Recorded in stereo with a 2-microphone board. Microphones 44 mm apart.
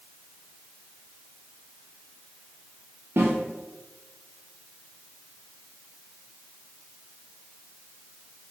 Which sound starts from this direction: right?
A snare drum, at 3.2 s.